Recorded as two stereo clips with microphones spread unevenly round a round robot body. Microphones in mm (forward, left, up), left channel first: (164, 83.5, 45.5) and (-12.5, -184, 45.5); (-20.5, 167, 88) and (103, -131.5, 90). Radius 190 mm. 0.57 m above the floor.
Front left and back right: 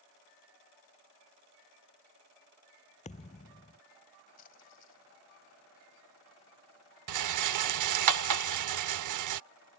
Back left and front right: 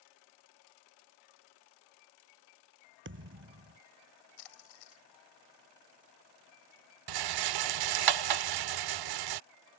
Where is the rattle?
90° right.